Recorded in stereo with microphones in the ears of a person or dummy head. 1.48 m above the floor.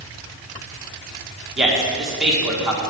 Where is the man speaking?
5° right (ahead or behind), 2 m.